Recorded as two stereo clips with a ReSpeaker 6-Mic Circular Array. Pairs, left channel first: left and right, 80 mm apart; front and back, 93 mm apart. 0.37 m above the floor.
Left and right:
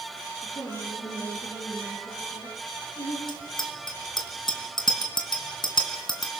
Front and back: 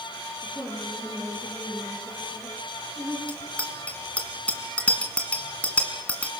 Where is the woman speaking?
90° left, 7.5 m.